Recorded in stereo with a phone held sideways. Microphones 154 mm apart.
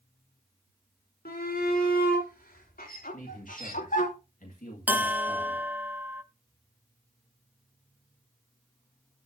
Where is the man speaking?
60° left (ahead or behind), 2 m.